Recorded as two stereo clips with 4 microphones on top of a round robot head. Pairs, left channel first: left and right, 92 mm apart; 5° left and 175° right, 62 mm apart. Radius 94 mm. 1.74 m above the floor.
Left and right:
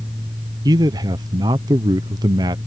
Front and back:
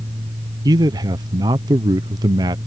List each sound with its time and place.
0.7 s a man speaking: 145° right